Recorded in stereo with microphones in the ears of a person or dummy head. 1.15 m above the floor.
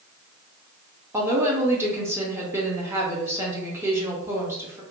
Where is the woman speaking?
15° right (ahead or behind), 0.6 m.